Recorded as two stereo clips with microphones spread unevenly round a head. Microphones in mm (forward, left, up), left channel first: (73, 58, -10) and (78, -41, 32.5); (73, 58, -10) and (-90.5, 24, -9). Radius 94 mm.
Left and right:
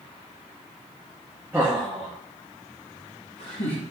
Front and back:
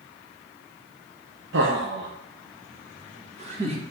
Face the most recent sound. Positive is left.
turn(degrees=135)